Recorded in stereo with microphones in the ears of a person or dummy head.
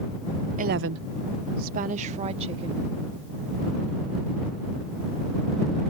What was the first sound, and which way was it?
A woman speaking, 35° right (ahead or behind).